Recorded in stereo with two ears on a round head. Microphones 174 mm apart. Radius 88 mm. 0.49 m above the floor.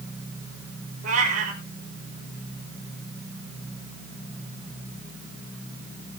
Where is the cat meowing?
40° right (ahead or behind), 4.5 m.